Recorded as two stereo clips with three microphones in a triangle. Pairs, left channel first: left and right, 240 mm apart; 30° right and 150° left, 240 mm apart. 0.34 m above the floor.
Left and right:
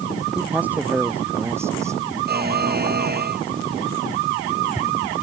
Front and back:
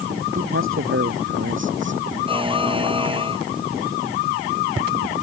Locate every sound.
0.3 s a man speaking: 175° right; by 2.0 s 170° right
2.3 s a buzzer: 140° right